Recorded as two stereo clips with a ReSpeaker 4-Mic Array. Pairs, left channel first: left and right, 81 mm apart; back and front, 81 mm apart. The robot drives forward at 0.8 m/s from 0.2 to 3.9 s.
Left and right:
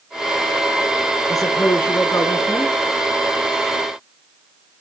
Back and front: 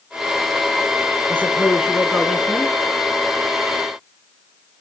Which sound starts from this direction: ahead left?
A woman speaking, at 1.3 s.